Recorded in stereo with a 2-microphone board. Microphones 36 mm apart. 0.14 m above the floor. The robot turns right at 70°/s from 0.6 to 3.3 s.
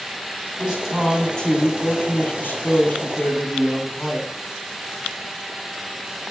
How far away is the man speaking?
About 8.5 m.